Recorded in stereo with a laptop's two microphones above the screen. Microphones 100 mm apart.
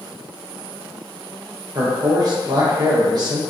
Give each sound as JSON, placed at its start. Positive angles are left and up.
{"t": 1.8, "sound": "a man speaking", "side_deg": -40, "distance_m": 0.7}